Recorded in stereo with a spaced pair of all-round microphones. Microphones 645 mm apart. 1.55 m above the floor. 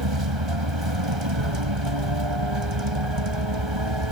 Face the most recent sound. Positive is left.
turn(degrees=-45)  # may be behind; listen again after turning